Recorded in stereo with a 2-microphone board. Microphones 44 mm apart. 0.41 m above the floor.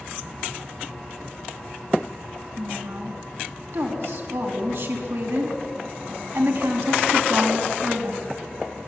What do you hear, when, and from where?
2.6 s a woman speaking: 70° right (ahead or behind), 4.5 m